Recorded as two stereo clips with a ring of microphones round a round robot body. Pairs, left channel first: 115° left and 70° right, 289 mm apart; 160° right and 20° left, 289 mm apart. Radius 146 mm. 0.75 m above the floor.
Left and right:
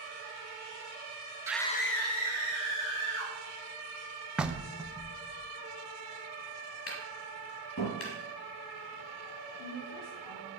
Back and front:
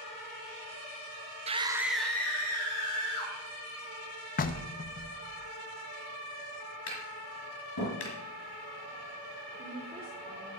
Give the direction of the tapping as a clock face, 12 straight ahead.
7 o'clock.